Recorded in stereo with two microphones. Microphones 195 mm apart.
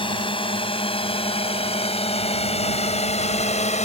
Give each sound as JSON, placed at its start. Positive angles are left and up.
{"t": 0.0, "sound": "a drone", "side_deg": 25}